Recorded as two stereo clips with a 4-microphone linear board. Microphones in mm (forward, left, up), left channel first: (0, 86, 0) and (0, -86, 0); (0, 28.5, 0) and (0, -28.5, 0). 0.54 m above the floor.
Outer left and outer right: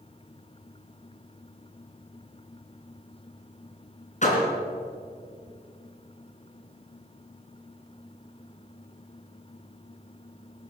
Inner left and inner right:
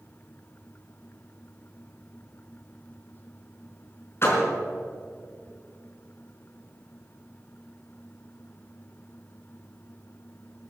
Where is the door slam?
45° left (ahead or behind), 4 m.